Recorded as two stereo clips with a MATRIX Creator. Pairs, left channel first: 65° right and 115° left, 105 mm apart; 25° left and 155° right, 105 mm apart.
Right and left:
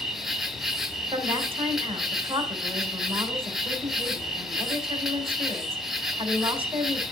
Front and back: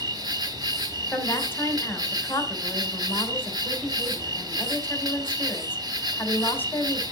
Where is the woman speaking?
90° left, 3.5 m.